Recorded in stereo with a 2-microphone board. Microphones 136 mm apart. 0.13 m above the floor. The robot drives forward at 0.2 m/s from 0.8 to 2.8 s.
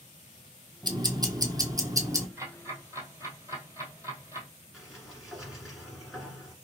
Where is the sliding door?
Centre (ahead or behind), 1.6 m.